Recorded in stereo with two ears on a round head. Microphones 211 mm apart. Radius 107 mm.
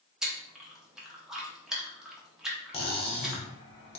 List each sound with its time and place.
0.2 s chewing: centre (ahead or behind), 0.7 m
2.7 s cutlery clinking: 25° left (ahead or behind), 0.7 m